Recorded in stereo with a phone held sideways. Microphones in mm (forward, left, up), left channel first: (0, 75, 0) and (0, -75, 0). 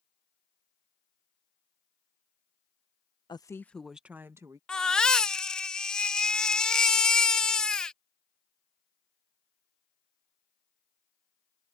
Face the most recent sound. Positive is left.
turn(degrees=5)  # may be behind; listen again after turning